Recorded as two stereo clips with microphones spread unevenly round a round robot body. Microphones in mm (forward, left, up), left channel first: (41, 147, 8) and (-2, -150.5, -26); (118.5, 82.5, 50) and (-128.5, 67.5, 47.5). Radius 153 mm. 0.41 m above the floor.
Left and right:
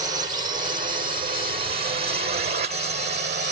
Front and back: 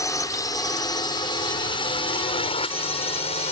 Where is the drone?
55° right.